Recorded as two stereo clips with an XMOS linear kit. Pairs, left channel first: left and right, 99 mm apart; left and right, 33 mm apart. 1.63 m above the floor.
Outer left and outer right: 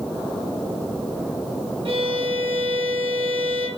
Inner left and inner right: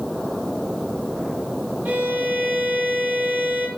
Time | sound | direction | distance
1.9 | a violin | 65° right (ahead or behind) | 2 m